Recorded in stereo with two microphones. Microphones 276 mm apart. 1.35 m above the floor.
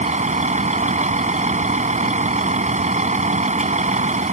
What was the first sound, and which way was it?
A vehicle, 25° right (ahead or behind).